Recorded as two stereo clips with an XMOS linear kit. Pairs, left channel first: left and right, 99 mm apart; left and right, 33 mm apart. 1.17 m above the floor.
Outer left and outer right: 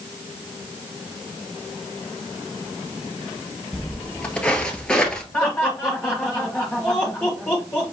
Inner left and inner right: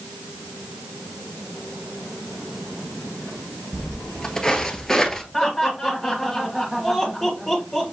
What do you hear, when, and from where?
3.7 s footsteps: 15° left (ahead or behind), 1.3 m; by 5.2 s 5° left (ahead or behind), 1.1 m
5.3 s laughter: 15° left (ahead or behind), 1.5 m